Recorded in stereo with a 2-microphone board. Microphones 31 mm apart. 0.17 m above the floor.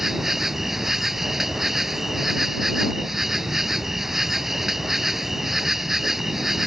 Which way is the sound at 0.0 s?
10° right (ahead or behind).